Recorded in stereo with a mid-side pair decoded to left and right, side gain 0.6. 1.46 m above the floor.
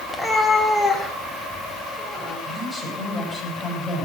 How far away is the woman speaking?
About 7.5 m.